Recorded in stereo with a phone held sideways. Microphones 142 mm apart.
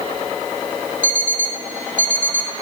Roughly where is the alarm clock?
Left.